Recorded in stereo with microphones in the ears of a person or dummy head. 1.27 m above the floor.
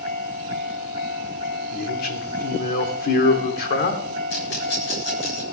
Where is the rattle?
70° left (ahead or behind), 7.5 m.